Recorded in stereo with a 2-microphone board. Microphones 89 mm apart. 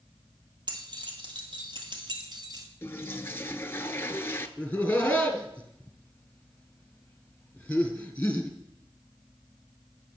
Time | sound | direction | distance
0.7 | keys jangling | 55° right (ahead or behind) | 2 m
2.8 | a toilet flushing | 25° left (ahead or behind) | 0.6 m
4.6 | laughter | 15° left (ahead or behind) | 1.6 m